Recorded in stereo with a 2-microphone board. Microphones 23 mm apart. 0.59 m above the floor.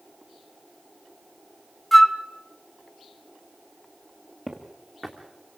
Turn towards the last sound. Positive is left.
turn(degrees=20)  # may be behind; listen again after turning